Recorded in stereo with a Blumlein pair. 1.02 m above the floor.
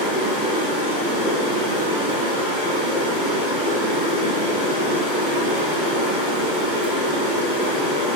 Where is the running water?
40° right, 1.8 m.